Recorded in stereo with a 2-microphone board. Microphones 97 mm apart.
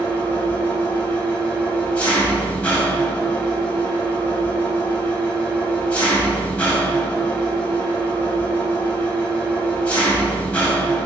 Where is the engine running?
15° left (ahead or behind), 0.8 m.